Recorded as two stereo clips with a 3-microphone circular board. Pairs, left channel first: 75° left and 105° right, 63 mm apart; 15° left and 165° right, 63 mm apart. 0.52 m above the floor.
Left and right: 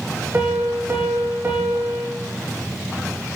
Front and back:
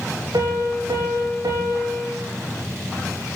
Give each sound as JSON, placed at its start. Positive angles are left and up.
{"t": 0.3, "sound": "a piano", "azimuth_deg": -165, "distance_m": 6.5}